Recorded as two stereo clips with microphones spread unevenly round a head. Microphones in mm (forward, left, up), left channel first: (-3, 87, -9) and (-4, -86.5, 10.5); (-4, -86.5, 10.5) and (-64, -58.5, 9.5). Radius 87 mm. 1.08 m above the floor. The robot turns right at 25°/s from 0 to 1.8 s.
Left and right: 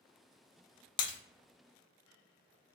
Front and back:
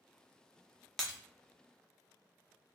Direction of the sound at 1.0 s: 45° left.